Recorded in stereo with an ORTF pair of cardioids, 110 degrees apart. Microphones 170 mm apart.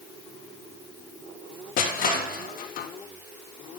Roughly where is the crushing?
Ahead left.